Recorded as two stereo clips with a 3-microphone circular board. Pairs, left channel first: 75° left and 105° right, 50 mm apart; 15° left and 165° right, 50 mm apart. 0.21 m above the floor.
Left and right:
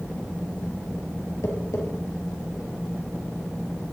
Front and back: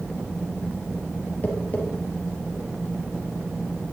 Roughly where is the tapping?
Left.